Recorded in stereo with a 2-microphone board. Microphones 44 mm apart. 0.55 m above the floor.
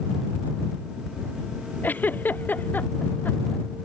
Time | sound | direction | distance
1.8 | a giggle | 45° left (ahead or behind) | ?